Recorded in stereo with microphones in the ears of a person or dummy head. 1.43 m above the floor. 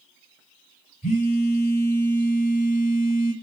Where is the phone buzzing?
40° left (ahead or behind), 1.9 m.